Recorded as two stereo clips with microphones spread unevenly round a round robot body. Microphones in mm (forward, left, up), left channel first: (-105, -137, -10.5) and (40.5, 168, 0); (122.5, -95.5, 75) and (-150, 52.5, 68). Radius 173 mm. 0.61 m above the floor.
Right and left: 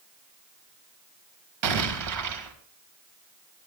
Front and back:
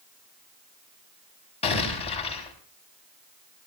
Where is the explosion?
45° left, 3.5 m.